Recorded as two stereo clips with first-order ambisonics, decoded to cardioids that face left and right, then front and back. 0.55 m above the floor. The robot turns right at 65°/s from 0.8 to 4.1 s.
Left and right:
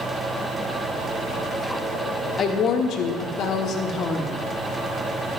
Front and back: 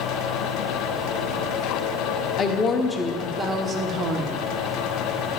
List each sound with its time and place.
2.4 s a woman speaking: 40° left, 0.8 m; by 4.4 s 150° left, 0.8 m